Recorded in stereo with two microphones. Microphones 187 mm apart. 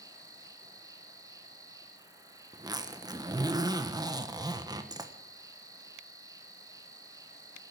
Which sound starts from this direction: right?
A zipper, at 2.5 s.